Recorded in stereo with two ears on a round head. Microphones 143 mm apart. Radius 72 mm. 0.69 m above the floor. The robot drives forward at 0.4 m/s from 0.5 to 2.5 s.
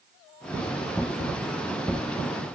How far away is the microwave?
I don't hear a microwave.